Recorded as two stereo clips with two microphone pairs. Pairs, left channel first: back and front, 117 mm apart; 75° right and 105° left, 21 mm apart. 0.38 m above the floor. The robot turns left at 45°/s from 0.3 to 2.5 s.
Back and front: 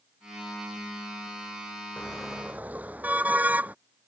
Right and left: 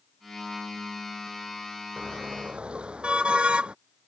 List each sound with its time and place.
2.0 s a car horn: 100° left; by 3.8 s 75° left